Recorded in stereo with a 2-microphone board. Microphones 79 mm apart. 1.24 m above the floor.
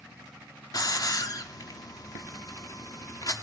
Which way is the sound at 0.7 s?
55° left (ahead or behind).